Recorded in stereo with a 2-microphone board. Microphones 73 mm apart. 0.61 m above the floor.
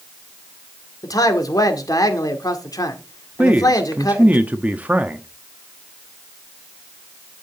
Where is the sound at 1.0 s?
60° left (ahead or behind), 1.8 m.